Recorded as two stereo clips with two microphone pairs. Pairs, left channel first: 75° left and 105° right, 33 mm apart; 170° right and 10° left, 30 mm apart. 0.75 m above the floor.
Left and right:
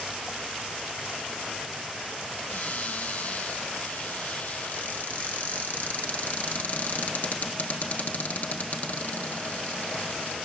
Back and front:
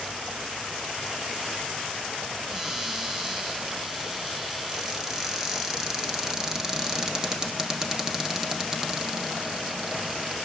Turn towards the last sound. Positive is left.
turn(degrees=85)